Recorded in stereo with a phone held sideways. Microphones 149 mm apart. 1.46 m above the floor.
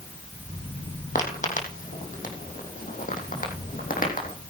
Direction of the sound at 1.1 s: 60° left (ahead or behind).